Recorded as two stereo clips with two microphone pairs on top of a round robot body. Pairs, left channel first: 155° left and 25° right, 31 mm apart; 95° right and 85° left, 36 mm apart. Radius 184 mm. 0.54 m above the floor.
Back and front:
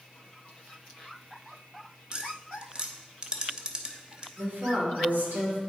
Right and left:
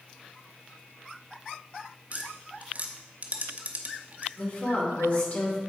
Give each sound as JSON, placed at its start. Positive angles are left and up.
{"t": 2.1, "sound": "tapping", "azimuth_deg": 40, "distance_m": 1.1}
{"t": 4.4, "sound": "a woman speaking", "azimuth_deg": -50, "distance_m": 2.5}